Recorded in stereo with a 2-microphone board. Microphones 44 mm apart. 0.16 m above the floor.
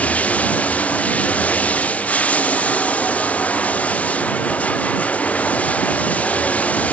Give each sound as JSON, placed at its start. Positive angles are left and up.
{"t": 0.0, "sound": "running water", "side_deg": 35}